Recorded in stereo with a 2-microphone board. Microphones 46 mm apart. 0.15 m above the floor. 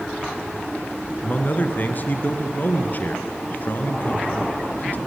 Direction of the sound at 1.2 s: 40° left (ahead or behind).